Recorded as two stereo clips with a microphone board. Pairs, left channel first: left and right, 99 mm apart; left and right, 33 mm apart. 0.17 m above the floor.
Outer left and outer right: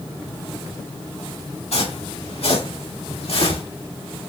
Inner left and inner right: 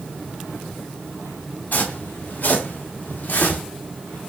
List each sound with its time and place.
1.7 s footsteps: 85° left, 3 m; by 3.6 s 75° left (ahead or behind), 2.5 m